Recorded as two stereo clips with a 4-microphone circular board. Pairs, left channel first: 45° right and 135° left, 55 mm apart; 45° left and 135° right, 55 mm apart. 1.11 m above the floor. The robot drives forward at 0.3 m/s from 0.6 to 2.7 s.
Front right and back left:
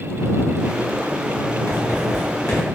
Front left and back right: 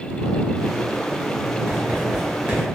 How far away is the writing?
About 1.6 m.